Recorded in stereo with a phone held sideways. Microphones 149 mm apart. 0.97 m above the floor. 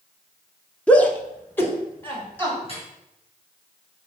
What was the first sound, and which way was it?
A shout, 10° left (ahead or behind).